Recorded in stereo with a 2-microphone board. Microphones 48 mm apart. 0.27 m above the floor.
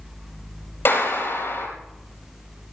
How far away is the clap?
About 5 m.